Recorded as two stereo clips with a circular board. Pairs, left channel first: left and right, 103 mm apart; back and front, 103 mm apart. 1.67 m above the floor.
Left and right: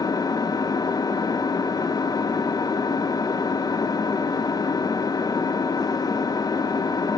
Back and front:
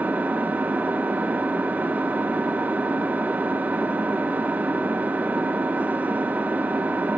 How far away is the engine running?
About 1.0 m.